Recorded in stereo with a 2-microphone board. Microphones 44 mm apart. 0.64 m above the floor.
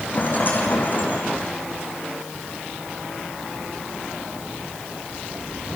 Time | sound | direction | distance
0.1 | a rattle | 40° left (ahead or behind) | 6.5 m